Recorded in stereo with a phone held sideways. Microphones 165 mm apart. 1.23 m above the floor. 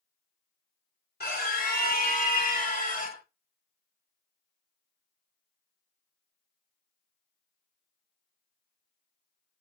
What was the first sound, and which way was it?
A scream, 75° left (ahead or behind).